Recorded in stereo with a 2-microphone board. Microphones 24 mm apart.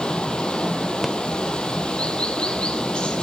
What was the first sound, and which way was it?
Running water, 50° left (ahead or behind).